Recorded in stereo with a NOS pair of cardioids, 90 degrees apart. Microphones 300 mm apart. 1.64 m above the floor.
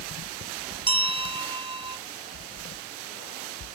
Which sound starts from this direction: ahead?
A bell, at 0.9 s.